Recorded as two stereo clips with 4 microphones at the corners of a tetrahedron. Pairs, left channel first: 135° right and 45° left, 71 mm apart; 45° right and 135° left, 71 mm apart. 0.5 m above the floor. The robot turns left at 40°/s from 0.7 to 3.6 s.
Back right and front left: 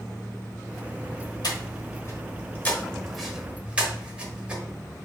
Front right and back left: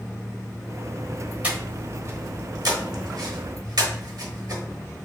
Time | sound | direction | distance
1.4 | breathing | 155° right | 1.0 m